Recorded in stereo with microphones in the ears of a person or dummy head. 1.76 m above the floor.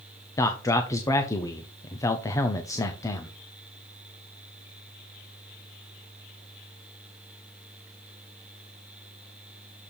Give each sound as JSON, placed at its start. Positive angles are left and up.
{"t": 0.4, "sound": "a man speaking", "side_deg": 25, "distance_m": 0.7}